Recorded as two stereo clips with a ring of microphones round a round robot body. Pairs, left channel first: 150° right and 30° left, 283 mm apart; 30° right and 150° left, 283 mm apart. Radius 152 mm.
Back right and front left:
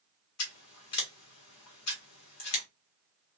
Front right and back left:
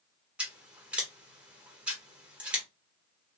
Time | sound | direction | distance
0.4 | scissors | 125° right | 1.4 m